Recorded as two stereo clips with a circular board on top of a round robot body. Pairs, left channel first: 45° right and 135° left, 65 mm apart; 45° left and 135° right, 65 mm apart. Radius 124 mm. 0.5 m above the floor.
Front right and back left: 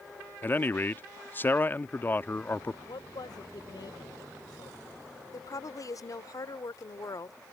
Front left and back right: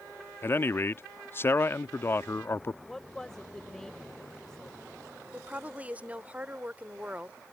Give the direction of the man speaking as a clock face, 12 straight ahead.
12 o'clock.